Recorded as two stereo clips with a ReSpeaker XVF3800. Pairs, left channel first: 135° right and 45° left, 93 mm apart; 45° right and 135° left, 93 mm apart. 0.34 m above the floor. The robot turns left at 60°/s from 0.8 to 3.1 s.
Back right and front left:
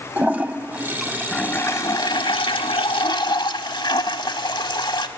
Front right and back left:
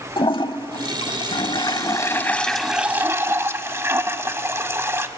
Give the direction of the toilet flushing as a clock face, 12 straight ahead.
1 o'clock.